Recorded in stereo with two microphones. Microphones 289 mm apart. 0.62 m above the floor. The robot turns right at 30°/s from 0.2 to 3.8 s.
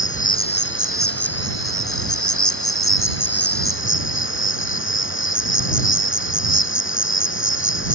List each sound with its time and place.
0.0 s an insect: 25° left; by 8.0 s 135° left